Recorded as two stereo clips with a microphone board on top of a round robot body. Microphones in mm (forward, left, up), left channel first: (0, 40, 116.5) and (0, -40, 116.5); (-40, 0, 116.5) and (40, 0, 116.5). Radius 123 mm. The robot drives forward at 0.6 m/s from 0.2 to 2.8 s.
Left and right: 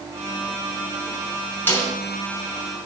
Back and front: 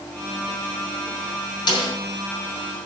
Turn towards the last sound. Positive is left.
turn(degrees=160)